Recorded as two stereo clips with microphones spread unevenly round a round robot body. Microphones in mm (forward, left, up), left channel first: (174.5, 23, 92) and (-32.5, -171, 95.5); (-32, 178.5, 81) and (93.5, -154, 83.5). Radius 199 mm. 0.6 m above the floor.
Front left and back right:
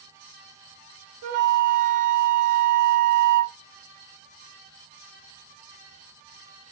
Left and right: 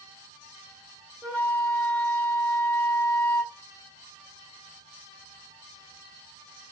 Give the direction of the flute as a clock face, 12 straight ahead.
5 o'clock.